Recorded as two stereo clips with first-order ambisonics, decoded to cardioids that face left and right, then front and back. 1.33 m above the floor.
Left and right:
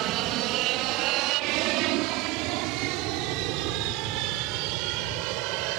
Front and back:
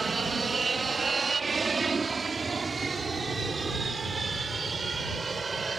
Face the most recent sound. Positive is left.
turn(degrees=-105)